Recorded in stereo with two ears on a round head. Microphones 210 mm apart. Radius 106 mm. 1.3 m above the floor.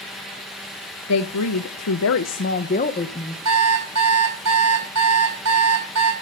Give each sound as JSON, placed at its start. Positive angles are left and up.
{"t": 1.1, "sound": "a woman speaking", "side_deg": 75, "distance_m": 1.0}
{"t": 3.5, "sound": "an alarm clock", "side_deg": -80, "distance_m": 4.5}